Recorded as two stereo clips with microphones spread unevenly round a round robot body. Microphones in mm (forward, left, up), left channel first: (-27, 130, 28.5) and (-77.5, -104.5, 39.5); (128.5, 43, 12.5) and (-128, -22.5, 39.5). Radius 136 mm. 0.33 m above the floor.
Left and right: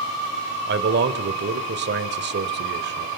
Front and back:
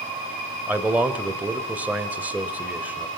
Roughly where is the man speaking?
Right.